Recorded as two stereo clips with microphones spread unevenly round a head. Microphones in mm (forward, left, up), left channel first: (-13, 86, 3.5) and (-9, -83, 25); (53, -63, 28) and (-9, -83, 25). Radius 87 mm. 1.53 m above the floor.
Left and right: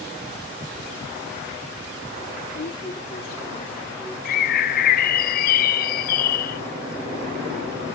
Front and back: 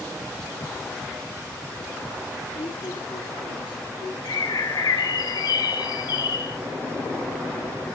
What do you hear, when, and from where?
2.5 s a woman speaking: 65° left, 1.1 m; by 4.2 s straight ahead, 2 m
4.2 s a bird: 60° left, 0.5 m